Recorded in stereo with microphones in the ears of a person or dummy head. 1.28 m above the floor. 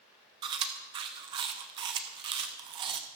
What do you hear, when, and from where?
0.4 s chewing: 25° right (ahead or behind), 0.8 m